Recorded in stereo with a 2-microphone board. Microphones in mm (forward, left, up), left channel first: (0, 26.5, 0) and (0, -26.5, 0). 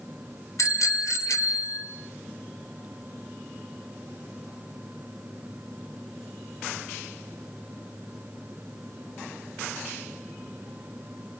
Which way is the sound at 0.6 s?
70° left (ahead or behind).